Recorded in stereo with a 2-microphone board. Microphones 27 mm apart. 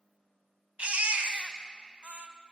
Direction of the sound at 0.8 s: 60° right (ahead or behind).